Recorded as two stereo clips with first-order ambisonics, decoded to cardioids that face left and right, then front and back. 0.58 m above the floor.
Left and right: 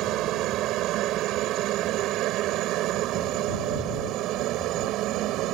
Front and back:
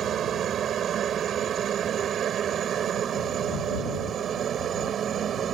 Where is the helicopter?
125° right.